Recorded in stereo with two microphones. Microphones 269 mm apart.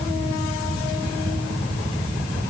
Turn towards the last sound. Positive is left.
No sound to turn to.